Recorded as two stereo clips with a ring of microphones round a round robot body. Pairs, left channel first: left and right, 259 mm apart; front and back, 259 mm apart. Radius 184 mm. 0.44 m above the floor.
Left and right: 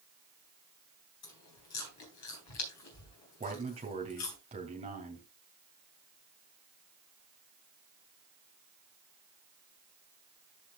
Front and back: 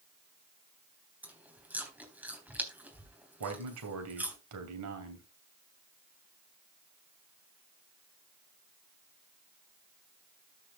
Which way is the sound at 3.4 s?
160° right.